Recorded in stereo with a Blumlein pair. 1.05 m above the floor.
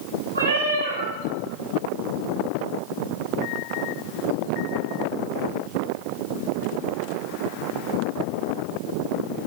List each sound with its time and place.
0.3 s a cat meowing: 70° right, 1.6 m